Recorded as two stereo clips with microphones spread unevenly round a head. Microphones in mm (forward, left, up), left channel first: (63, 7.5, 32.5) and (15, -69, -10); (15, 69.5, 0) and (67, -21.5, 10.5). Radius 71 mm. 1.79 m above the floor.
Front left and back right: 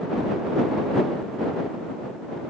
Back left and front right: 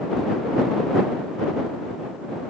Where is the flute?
No flute in this recording.